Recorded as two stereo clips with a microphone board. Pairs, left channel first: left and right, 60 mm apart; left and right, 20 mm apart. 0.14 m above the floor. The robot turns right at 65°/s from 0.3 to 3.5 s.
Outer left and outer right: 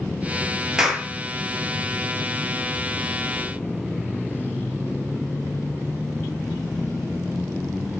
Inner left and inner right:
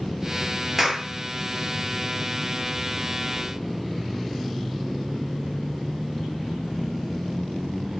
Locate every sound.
0.8 s a clap: 10° right (ahead or behind), 2.5 m; by 1.1 s 10° left (ahead or behind), 2.5 m